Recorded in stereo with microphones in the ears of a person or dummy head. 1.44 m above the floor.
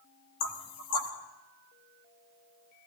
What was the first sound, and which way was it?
Knocking, 80° left.